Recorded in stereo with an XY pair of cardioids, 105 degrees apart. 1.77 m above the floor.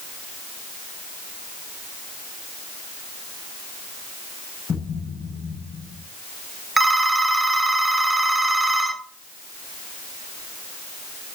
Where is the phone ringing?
20° right, 2.5 m.